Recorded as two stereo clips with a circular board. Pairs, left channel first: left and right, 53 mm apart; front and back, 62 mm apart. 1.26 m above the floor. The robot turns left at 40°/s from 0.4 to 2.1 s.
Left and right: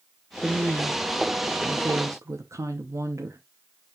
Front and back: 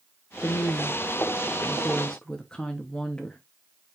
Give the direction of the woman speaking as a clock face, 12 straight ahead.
12 o'clock.